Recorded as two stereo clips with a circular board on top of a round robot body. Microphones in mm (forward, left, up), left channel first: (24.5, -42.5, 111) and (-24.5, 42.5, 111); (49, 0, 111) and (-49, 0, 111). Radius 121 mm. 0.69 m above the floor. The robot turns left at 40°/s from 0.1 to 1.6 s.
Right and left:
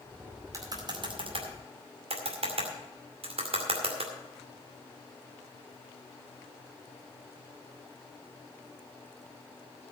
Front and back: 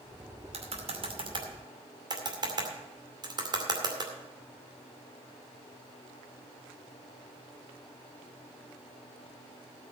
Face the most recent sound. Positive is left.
turn(degrees=135)